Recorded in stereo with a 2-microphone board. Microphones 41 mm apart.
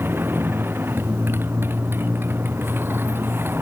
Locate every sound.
0.0 s a motorcycle: 65° right (ahead or behind)